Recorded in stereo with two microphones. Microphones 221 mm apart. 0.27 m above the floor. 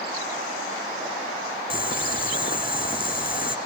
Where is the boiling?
40° left (ahead or behind), 0.8 m.